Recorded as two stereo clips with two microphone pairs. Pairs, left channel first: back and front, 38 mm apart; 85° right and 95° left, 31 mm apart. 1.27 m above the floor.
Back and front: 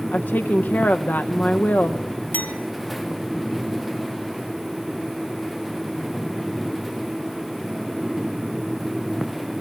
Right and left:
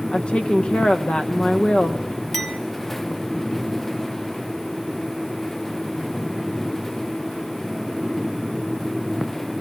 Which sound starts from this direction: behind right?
A woman speaking, at 0.1 s.